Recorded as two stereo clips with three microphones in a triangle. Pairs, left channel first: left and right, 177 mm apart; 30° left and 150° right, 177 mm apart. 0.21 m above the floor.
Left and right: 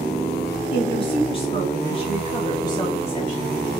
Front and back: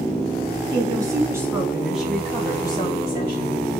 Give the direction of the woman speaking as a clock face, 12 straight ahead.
7 o'clock.